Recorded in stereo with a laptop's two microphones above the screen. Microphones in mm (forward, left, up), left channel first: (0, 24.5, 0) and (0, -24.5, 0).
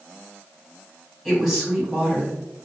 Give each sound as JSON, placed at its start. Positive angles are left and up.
{"t": 1.2, "sound": "a woman speaking", "side_deg": -10, "distance_m": 1.8}